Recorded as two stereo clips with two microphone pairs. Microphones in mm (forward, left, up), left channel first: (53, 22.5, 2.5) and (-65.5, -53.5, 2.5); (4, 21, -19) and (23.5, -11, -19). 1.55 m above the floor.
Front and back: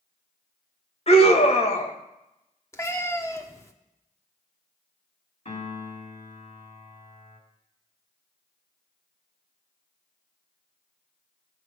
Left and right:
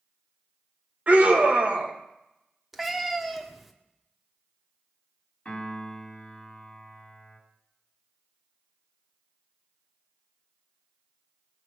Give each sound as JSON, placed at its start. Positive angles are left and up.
{"t": 1.1, "sound": "a scream", "azimuth_deg": -10, "distance_m": 2.0}
{"t": 2.7, "sound": "a cat meowing", "azimuth_deg": 20, "distance_m": 1.1}
{"t": 5.5, "sound": "a piano", "azimuth_deg": 65, "distance_m": 3.0}